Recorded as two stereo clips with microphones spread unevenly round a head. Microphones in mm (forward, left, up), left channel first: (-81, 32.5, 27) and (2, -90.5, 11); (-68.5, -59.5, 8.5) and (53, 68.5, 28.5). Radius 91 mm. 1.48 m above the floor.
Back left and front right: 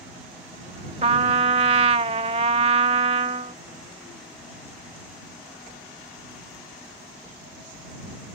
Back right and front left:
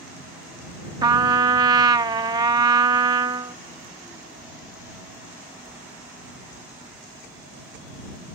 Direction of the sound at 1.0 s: 5° right.